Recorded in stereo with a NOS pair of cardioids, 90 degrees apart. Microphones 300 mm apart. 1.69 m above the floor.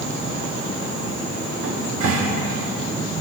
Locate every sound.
1.6 s a cupboard door: 65° right, 3.5 m